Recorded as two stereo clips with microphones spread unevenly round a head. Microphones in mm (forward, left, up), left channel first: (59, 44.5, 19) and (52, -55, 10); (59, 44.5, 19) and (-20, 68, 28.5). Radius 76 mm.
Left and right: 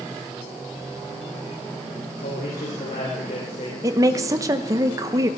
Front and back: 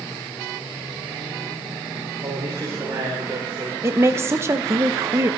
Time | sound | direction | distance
2.2 | a man speaking | 120° left | 3 m
3.8 | a woman speaking | 135° right | 0.8 m